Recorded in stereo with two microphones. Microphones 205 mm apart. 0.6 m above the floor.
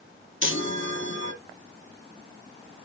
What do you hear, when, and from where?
0.4 s a chime: 70° left (ahead or behind), 1.6 m